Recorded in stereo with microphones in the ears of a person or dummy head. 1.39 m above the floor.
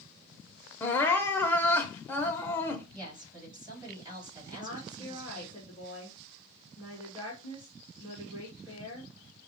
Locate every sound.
0.8 s crying: 10° left (ahead or behind), 0.6 m
2.9 s a woman speaking: 20° right (ahead or behind), 3.5 m
4.5 s a woman speaking: 25° right (ahead or behind), 2 m